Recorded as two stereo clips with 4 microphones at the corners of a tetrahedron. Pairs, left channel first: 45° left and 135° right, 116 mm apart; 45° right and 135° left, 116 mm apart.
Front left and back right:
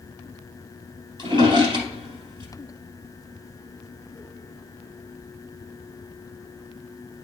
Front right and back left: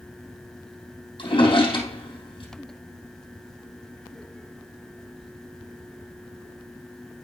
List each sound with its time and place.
1.2 s a drawer: 90° right, 3 m